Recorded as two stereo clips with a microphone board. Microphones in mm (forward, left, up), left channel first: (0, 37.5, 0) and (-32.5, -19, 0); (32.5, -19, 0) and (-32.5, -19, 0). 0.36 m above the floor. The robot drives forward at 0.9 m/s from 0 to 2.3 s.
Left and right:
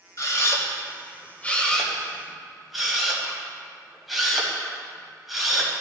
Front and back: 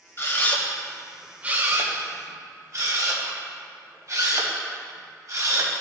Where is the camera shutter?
40° left, 1.2 m; by 5.7 s 155° left, 1.4 m.